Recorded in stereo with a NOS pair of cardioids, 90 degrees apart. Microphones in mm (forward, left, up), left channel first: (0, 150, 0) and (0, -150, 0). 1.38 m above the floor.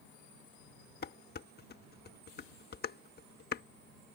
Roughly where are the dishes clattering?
Ahead left.